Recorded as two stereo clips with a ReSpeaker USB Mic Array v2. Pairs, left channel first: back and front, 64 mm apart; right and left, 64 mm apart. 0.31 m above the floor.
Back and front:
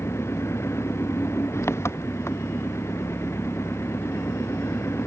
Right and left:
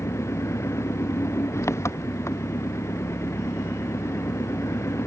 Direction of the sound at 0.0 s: 135° right.